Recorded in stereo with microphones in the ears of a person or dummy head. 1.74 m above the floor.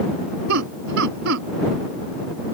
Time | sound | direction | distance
0.5 | laughter | 70° right (ahead or behind) | ?